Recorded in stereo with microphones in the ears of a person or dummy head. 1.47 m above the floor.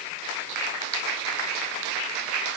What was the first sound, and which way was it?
Only background noise.